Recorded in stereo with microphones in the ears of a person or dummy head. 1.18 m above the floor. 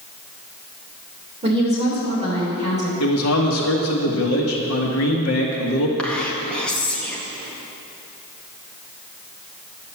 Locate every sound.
1.4 s a woman speaking: 25° right (ahead or behind), 3.5 m
3.0 s a man speaking: 75° left (ahead or behind), 1.7 m
6.0 s whispering: 10° left (ahead or behind), 1.5 m